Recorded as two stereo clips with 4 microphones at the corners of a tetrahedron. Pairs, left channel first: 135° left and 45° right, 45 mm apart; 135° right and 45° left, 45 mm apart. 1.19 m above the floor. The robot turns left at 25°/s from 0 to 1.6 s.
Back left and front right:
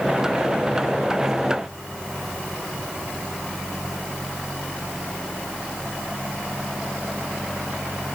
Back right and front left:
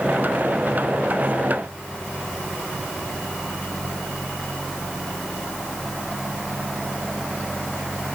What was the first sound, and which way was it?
Only background noise.